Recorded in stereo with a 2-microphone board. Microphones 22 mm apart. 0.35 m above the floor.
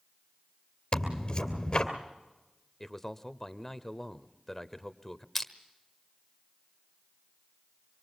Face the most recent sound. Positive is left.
turn(degrees=10)  # may be behind; listen again after turning